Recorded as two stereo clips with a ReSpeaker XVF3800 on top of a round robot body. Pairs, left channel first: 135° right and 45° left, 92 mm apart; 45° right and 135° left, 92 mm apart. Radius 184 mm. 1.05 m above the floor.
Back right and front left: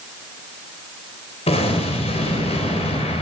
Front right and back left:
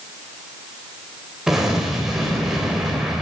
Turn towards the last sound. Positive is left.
turn(degrees=-140)